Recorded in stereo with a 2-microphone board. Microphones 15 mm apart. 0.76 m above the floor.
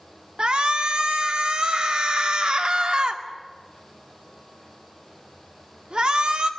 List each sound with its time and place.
0.4 s a shout: 65° right (ahead or behind), 2 m